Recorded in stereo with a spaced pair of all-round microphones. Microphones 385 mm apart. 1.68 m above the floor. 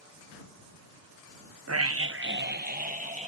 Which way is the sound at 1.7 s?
40° right (ahead or behind).